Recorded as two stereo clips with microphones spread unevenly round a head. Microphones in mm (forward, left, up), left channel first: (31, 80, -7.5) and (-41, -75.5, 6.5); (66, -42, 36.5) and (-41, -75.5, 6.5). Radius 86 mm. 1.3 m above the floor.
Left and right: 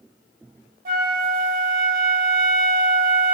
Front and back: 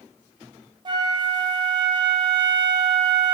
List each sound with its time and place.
0.8 s a flute: 115° right, 1.5 m